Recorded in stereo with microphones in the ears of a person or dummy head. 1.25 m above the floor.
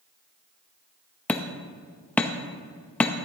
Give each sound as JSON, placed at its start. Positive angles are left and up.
{"t": 1.3, "sound": "hammering", "side_deg": 5, "distance_m": 0.7}